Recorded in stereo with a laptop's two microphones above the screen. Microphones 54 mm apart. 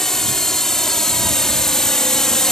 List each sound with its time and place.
0.0 s a drone: 5° left (ahead or behind); by 2.5 s 10° left (ahead or behind)